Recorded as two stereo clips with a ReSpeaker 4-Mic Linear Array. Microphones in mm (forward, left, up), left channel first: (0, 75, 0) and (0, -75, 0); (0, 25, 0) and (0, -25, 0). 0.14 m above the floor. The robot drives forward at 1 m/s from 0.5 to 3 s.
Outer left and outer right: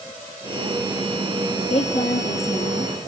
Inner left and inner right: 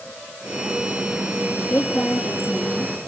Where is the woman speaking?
50° left (ahead or behind), 3.5 m; by 2.9 s 40° left (ahead or behind), 4 m.